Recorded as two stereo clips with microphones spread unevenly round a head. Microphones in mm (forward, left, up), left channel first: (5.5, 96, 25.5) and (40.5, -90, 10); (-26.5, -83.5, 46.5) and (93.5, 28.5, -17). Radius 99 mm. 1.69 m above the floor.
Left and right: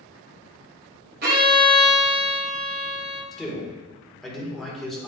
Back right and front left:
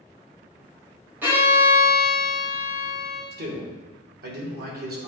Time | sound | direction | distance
1.2 | a violin | 50° right | 1.9 m
3.3 | a man speaking | 10° left | 2 m